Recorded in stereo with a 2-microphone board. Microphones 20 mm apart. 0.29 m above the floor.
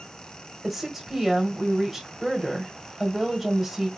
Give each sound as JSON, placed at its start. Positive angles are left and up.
{"t": 0.6, "sound": "a woman speaking", "side_deg": -10, "distance_m": 1.6}